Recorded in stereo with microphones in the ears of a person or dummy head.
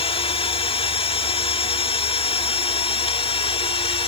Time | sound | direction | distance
0.0 | a machine running | 30° left (ahead or behind) | ?